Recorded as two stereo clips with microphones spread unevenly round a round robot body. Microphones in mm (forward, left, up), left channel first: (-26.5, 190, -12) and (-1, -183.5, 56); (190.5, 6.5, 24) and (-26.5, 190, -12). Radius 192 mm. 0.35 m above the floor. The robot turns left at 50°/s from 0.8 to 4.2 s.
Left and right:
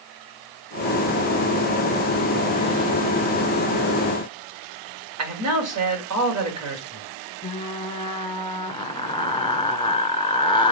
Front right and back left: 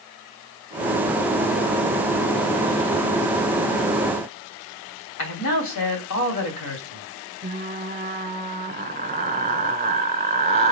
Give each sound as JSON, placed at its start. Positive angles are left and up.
{"t": 5.2, "sound": "a man speaking", "azimuth_deg": -35, "distance_m": 2.5}
{"t": 7.4, "sound": "frying", "azimuth_deg": 135, "distance_m": 1.4}